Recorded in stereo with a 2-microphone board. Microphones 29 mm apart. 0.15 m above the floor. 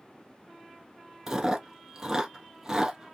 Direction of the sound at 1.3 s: 15° right (ahead or behind).